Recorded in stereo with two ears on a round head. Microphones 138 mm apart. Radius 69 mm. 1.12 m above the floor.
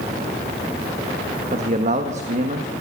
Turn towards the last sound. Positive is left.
turn(degrees=-45)  # may be behind; listen again after turning